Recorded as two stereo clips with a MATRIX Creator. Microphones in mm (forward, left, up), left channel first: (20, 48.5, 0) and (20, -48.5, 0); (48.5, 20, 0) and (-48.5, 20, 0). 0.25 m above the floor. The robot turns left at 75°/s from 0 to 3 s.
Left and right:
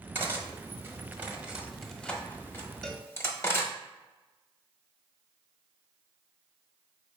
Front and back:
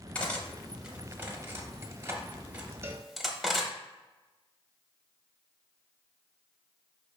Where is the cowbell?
170° left, 0.5 m; by 3.1 s 155° left, 0.5 m.